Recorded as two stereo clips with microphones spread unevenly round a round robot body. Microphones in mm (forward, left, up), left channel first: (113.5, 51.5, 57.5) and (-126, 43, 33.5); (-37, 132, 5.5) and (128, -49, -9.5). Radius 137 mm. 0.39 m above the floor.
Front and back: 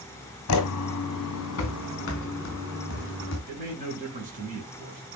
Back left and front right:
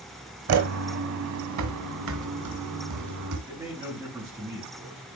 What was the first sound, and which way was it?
Footsteps, 25° right.